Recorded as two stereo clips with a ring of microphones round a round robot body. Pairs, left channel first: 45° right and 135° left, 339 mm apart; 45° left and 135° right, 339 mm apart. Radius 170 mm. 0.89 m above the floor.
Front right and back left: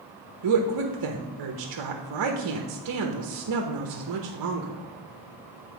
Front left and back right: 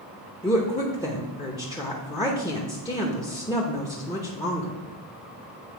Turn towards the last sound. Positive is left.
turn(degrees=120)